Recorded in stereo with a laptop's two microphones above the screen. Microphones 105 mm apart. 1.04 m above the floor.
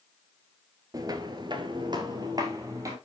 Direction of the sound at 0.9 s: 35° right (ahead or behind).